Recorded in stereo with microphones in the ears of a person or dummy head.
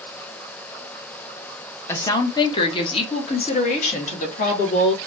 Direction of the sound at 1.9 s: 20° left (ahead or behind).